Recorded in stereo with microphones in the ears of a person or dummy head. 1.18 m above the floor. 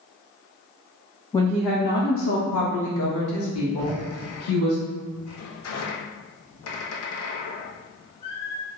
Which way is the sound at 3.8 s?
80° left.